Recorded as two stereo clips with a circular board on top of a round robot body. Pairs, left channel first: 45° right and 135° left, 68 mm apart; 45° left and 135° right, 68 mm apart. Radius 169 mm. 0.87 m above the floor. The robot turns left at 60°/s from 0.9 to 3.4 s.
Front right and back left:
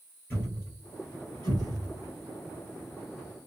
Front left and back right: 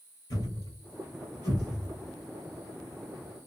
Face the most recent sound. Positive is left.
turn(degrees=-125)